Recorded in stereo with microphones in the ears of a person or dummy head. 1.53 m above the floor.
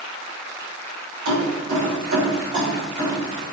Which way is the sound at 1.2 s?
65° right (ahead or behind).